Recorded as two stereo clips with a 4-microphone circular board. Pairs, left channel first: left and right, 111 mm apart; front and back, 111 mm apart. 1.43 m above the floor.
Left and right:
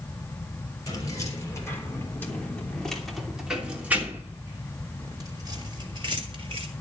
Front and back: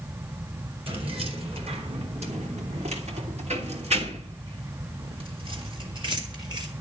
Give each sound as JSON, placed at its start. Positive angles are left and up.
{"t": 0.9, "sound": "keys jangling", "azimuth_deg": 145, "distance_m": 3.5}